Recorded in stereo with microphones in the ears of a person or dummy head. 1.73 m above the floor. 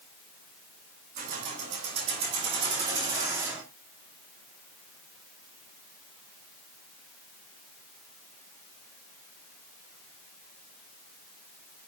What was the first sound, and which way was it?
Keys jangling, 40° right (ahead or behind).